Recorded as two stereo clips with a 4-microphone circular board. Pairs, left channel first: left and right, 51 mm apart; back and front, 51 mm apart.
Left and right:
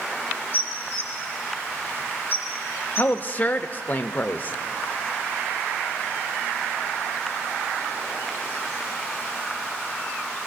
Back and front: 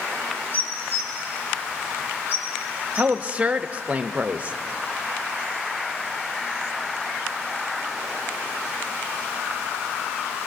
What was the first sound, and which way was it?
Dishes clattering, 135° left.